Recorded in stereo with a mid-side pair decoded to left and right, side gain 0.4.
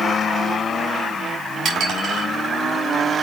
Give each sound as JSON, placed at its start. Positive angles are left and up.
{"t": 1.6, "sound": "dishes clattering", "azimuth_deg": -70, "distance_m": 5.0}